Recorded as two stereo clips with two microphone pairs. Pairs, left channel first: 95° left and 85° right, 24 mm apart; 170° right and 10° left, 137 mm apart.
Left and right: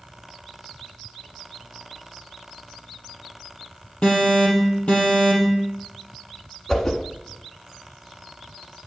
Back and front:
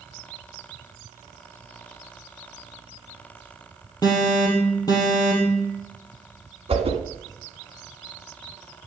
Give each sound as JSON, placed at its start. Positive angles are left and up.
{"t": 4.0, "sound": "an alarm", "azimuth_deg": 130, "distance_m": 3.5}
{"t": 6.7, "sound": "a whoosh", "azimuth_deg": 35, "distance_m": 1.3}